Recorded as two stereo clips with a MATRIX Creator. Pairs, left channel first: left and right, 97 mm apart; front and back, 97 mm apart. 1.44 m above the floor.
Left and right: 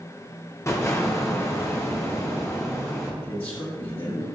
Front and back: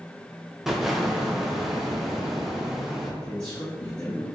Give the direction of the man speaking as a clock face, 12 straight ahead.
9 o'clock.